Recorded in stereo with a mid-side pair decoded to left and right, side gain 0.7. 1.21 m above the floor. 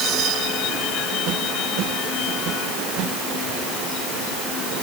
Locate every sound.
Only background noise.